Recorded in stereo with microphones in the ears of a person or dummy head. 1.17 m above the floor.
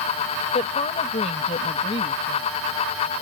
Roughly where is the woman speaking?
Left.